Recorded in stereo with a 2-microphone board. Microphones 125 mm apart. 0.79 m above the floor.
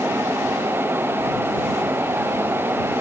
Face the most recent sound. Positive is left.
No sound to turn to.